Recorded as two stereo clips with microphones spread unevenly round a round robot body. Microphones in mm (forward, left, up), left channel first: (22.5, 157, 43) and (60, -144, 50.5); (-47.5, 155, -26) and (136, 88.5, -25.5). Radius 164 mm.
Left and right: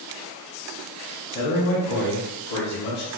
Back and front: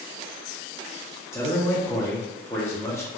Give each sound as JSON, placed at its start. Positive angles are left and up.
{"t": 1.3, "sound": "a man speaking", "azimuth_deg": 85, "distance_m": 1.0}